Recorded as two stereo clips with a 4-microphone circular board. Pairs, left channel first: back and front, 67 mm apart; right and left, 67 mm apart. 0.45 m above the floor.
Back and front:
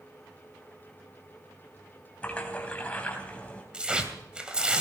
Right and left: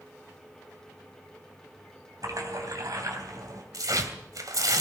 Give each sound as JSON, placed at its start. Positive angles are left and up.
{"t": 2.2, "sound": "a splash", "azimuth_deg": 110, "distance_m": 3.5}
{"t": 3.7, "sound": "tearing paper", "azimuth_deg": 75, "distance_m": 2.5}